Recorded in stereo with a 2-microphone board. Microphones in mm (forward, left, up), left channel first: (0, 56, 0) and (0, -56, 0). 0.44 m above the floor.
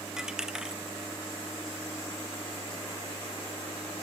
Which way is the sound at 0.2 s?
5° right (ahead or behind).